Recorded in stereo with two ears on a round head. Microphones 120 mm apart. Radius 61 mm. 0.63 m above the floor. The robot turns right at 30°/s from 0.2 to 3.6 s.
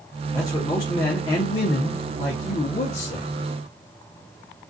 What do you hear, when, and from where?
0.3 s a man speaking: 25° left, 0.8 m; by 3.3 s 115° left, 0.8 m